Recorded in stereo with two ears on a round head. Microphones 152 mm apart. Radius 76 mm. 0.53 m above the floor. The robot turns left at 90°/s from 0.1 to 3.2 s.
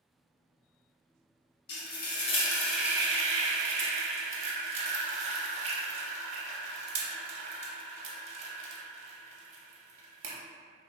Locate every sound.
1.7 s frying: 65° left (ahead or behind), 0.5 m; by 10.3 s 35° right (ahead or behind), 0.5 m